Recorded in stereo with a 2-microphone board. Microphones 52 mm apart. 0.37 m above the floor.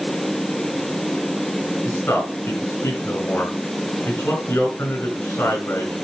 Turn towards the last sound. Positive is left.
turn(degrees=60)  # may be behind; listen again after turning